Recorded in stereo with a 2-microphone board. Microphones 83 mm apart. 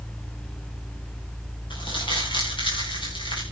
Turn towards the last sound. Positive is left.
turn(degrees=80)